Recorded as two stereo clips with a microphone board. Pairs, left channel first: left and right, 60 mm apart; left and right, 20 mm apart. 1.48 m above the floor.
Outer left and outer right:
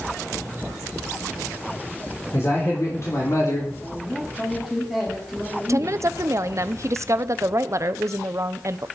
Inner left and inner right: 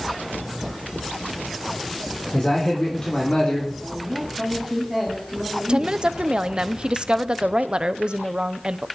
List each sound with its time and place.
2.3 s a man speaking: 50° left (ahead or behind), 4 m; by 3.7 s 65° left (ahead or behind), 3 m
3.8 s a man speaking: 15° left (ahead or behind), 4 m
5.7 s a woman speaking: 55° right (ahead or behind), 0.8 m